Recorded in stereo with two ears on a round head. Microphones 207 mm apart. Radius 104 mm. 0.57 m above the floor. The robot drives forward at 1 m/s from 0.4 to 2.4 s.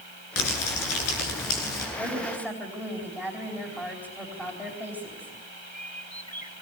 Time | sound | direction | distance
0.4 | crumpling | 65° left (ahead or behind) | 9 m
2.0 | a woman speaking | 5° left (ahead or behind) | 4 m